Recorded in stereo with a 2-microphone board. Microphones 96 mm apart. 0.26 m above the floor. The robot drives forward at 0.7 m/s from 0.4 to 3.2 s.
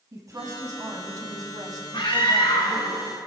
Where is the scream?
60° left (ahead or behind), 3 m; by 2.9 s 55° left (ahead or behind), 3.5 m.